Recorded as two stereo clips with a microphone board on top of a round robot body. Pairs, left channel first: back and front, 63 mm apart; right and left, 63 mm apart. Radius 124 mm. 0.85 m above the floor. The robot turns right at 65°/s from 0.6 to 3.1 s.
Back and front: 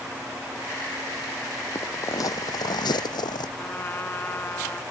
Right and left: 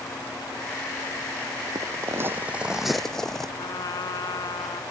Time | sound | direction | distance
1.8 | footsteps | 130° left | ?
3.6 | a trumpet | 120° right | ?